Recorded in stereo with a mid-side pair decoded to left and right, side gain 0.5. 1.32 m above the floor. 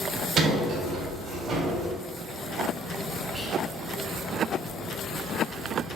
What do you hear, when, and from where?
0.4 s a sliding door: 55° right, 3 m
3.3 s whispering: 25° right, 3.5 m